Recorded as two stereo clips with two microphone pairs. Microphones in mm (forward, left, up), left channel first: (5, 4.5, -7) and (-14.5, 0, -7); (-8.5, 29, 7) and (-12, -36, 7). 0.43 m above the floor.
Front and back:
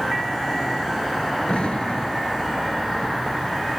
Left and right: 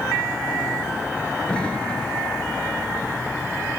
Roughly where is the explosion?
Ahead.